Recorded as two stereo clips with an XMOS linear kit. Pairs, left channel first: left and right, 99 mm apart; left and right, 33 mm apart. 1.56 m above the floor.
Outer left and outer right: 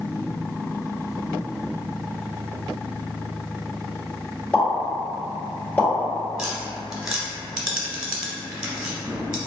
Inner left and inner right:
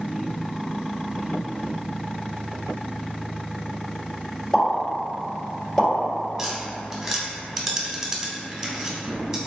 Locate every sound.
4.5 s a pop: 15° left (ahead or behind), 1.8 m
6.4 s tapping: 5° right (ahead or behind), 1.0 m